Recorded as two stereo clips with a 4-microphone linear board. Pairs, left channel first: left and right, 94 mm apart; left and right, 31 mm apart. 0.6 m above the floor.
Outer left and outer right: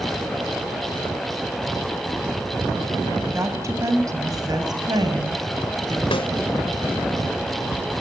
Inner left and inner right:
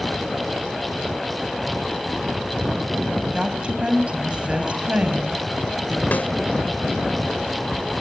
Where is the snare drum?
70° left (ahead or behind), 2.5 m.